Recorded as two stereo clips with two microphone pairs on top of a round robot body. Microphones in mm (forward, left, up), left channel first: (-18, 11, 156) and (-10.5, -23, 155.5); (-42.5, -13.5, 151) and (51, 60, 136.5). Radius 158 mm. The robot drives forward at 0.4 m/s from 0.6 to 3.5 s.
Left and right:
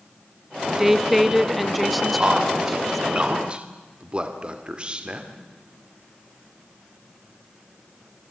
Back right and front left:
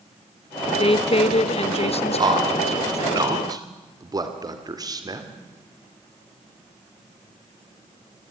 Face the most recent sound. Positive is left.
turn(degrees=-15)